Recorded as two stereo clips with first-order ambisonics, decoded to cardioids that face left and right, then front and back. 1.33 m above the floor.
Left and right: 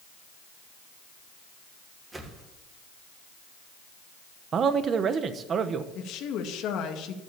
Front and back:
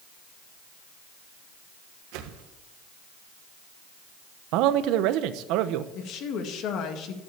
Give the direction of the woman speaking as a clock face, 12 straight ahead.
10 o'clock.